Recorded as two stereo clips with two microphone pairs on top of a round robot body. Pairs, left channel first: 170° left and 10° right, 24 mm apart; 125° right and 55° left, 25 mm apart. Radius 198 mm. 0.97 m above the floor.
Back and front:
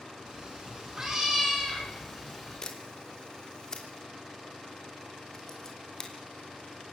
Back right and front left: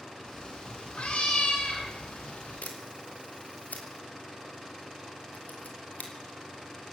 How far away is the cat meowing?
About 5 m.